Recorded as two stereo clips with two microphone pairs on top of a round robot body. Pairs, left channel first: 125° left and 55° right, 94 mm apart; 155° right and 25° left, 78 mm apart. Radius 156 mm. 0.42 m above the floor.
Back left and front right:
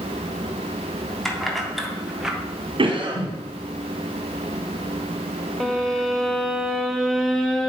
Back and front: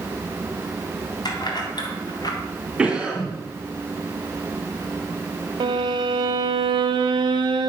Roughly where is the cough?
Ahead right.